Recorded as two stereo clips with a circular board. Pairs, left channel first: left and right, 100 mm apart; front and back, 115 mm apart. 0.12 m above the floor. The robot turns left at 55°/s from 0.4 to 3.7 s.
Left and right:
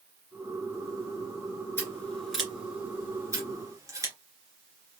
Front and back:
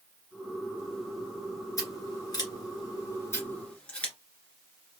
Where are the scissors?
35° left, 1.9 m; by 4.1 s 70° right, 1.9 m.